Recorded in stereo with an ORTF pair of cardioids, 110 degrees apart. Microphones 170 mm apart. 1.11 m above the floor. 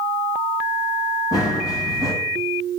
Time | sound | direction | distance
1.3 | running footsteps | 25° left | 5.5 m